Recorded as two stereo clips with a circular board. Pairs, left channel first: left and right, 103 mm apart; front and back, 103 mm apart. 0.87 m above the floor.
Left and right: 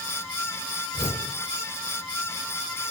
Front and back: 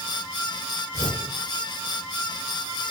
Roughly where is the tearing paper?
Behind left.